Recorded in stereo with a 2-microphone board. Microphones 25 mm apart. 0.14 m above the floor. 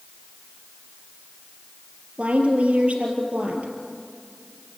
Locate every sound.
2.2 s a woman speaking: 60° right (ahead or behind), 3.5 m